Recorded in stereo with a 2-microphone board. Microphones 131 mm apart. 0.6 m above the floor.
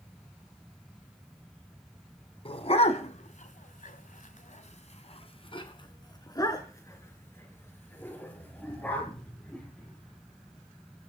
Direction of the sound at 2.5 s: 45° left (ahead or behind).